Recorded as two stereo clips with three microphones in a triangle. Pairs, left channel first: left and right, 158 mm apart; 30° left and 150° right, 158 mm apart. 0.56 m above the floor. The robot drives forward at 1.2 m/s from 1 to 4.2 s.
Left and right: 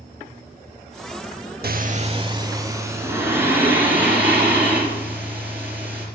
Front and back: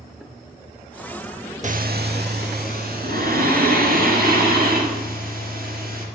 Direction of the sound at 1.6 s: 105° right.